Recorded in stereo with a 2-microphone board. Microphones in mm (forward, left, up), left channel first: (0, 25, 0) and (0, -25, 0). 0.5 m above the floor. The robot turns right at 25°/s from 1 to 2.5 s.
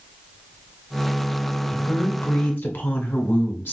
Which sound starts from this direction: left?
A woman speaking, at 1.7 s.